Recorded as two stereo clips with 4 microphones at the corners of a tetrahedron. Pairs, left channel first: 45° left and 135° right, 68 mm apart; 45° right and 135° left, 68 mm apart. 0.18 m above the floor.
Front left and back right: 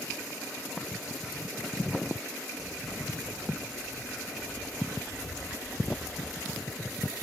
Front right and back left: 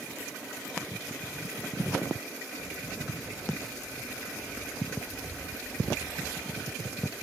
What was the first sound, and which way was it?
Footsteps, 5° left.